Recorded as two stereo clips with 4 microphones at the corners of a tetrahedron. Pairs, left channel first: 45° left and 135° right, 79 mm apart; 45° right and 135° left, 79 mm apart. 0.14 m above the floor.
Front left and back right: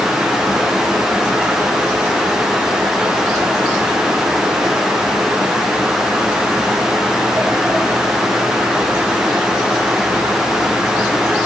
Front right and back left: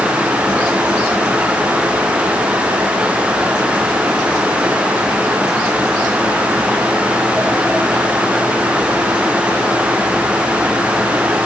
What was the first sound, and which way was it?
Only background noise.